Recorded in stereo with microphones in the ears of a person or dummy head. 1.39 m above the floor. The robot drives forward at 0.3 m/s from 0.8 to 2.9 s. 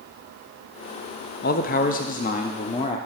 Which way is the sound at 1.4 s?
50° left (ahead or behind).